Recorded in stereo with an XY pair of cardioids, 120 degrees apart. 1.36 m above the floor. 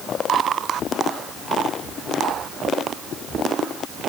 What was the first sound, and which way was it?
Only background noise.